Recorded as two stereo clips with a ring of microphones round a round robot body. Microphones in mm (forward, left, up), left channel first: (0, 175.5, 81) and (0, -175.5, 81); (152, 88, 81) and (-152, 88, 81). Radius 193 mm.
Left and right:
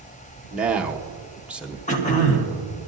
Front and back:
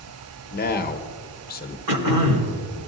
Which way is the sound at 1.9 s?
160° left.